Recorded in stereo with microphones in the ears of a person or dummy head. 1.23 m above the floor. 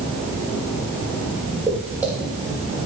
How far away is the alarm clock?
I don't hear an alarm clock.